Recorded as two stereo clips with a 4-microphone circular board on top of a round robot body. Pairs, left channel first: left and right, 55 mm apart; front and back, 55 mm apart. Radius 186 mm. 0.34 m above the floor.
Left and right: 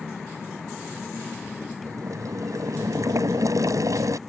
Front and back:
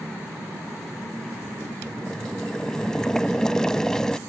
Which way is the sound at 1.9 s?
80° right.